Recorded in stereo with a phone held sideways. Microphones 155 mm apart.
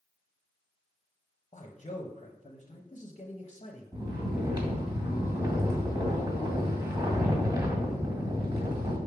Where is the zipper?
I don't hear a zipper.